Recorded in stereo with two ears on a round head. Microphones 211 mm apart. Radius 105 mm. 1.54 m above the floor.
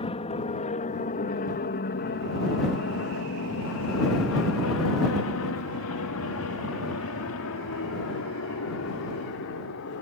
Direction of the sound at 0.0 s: 25° left (ahead or behind).